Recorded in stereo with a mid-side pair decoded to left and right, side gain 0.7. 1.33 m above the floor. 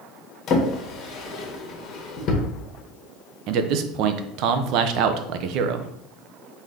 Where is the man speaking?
60° right, 0.6 m.